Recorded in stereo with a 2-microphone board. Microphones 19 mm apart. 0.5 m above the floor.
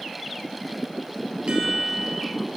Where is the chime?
65° right (ahead or behind), 3 m.